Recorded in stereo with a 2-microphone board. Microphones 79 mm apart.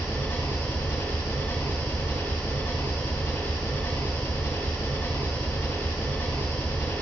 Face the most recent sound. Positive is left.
turn(degrees=30)  # may be behind; listen again after turning